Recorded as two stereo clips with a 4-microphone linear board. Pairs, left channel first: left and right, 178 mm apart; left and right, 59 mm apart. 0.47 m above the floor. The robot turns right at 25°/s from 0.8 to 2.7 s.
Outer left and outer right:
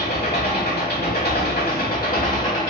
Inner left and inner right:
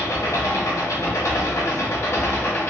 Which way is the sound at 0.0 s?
85° left.